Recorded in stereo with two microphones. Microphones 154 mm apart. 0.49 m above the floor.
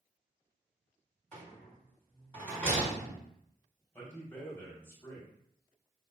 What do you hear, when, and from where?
1.3 s a rattle: 15° left (ahead or behind), 1.9 m
3.9 s a man speaking: 20° left (ahead or behind), 1.6 m